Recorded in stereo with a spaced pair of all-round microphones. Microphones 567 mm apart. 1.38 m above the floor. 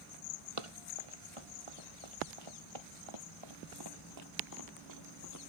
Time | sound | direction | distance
0.6 | running footsteps | 65° right (ahead or behind) | ?